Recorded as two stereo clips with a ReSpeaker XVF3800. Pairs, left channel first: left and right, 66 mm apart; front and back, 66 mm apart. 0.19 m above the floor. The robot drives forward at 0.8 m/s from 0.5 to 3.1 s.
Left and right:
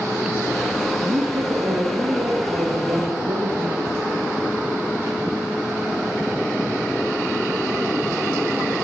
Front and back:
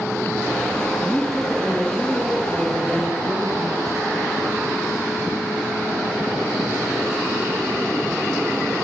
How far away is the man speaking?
About 7 m.